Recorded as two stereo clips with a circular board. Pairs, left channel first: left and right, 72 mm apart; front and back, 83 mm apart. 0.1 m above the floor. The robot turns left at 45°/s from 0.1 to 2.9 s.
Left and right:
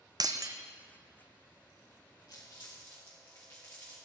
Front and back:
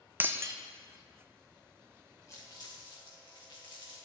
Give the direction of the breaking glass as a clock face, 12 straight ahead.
4 o'clock.